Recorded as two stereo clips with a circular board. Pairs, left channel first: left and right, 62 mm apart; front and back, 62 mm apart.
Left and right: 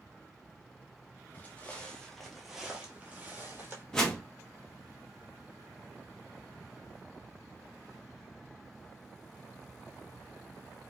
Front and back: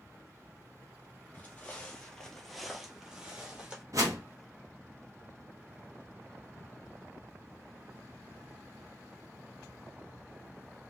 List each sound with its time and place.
1.3 s footsteps: 45° left, 1.0 m; by 3.8 s 120° right, 1.1 m
3.9 s a whoosh: 165° left, 0.8 m